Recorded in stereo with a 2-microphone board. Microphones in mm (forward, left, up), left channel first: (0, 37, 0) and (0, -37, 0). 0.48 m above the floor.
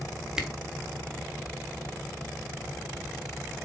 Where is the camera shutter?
10° right (ahead or behind), 1.4 m.